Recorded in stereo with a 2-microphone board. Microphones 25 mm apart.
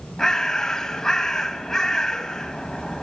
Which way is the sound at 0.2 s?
15° left (ahead or behind).